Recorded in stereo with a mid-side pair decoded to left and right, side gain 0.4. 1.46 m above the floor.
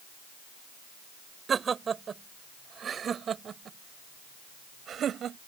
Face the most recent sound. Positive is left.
turn(degrees=-65)